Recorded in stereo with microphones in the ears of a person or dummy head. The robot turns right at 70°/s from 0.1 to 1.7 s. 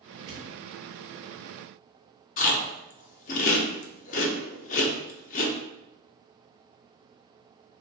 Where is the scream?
No scream in this recording.